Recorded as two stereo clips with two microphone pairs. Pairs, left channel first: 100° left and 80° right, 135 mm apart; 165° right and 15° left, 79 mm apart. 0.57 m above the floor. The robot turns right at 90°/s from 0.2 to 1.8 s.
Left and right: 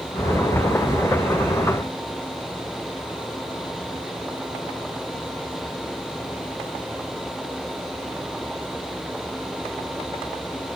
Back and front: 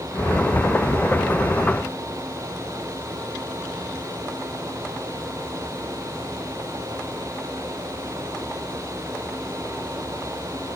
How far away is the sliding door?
I don't hear a sliding door.